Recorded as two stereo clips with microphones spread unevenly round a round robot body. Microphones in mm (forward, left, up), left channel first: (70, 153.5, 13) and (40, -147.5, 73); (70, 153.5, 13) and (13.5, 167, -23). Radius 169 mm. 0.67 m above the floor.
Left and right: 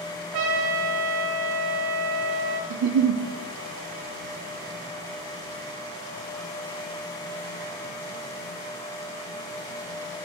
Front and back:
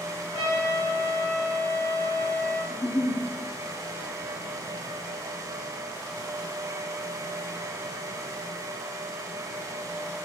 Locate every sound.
0.3 s a trumpet: 85° right, 1.4 m
2.7 s a giggle: 65° right, 0.6 m